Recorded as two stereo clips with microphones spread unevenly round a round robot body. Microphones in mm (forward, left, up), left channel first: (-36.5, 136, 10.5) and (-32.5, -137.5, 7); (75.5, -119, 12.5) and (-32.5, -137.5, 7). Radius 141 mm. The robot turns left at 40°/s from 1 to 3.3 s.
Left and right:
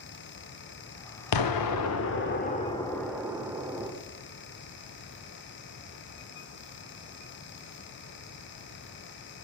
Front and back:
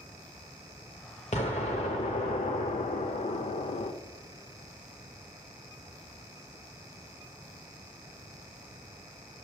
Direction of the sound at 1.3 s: 75° left.